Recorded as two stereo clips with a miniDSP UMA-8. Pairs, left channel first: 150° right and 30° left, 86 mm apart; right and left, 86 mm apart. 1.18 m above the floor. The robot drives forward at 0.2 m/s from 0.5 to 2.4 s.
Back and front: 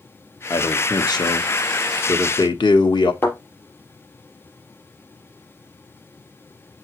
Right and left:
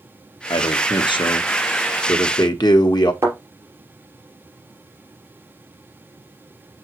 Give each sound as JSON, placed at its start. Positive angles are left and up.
{"t": 0.5, "sound": "a man speaking", "azimuth_deg": -105, "distance_m": 1.0}
{"t": 3.2, "sound": "a thud", "azimuth_deg": 145, "distance_m": 4.0}